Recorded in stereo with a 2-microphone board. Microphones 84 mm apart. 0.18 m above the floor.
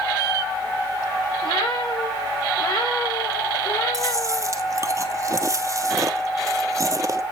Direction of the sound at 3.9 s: 40° right (ahead or behind).